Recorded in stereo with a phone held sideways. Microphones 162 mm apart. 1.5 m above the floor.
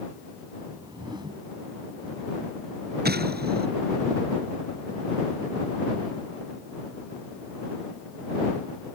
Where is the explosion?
85° right.